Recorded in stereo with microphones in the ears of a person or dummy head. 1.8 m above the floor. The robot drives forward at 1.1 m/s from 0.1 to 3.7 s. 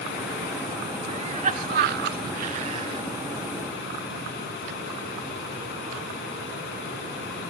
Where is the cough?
35° right (ahead or behind), 1.3 m; by 3.0 s 30° right (ahead or behind), 1.5 m.